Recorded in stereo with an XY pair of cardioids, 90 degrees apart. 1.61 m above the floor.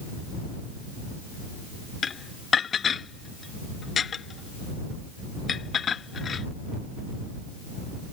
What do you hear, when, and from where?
2.0 s dishes clattering: 50° left